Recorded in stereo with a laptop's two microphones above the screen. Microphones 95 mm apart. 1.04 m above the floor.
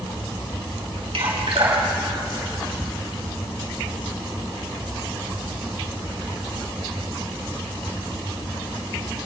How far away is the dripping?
About 5.5 m.